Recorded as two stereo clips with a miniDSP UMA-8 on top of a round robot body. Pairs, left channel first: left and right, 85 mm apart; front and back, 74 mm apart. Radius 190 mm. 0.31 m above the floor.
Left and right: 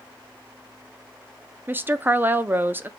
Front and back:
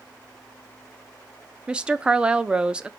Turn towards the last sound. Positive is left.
turn(degrees=-120)